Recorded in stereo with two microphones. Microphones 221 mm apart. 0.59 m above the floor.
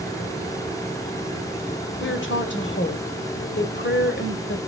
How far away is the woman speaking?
About 2.5 m.